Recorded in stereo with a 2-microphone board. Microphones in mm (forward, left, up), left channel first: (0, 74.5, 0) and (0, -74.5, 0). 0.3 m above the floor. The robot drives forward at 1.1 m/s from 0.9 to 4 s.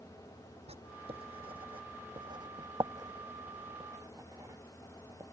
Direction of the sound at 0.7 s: 45° right (ahead or behind).